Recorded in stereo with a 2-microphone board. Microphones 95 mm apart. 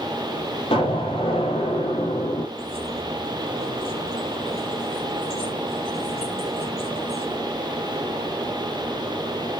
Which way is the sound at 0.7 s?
75° left (ahead or behind).